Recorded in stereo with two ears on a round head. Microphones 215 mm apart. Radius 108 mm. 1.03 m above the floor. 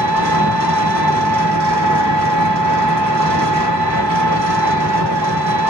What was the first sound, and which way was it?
An engine running, 75° right (ahead or behind).